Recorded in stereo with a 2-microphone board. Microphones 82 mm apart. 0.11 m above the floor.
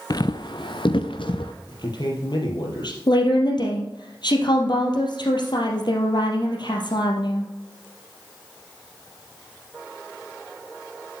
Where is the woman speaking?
65° left (ahead or behind), 2.5 m.